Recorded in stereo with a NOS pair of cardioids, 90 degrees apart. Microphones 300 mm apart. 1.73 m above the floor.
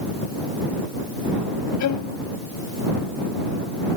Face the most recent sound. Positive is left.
turn(degrees=70)